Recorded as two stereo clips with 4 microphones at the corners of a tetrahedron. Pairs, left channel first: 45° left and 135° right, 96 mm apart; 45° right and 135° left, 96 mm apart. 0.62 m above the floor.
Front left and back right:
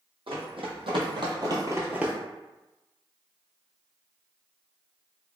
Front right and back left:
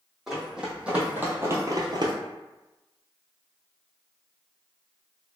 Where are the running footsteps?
140° right, 1.9 m; by 2.1 s 145° left, 0.8 m.